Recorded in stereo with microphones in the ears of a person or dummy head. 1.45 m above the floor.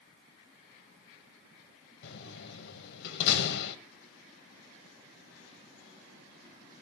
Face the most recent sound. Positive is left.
turn(degrees=65)  # may be behind; listen again after turning